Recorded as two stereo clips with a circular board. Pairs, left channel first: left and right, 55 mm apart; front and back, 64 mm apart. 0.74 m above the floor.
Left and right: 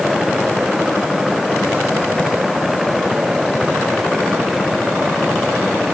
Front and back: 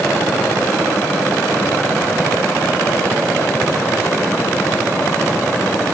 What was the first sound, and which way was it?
Only background noise.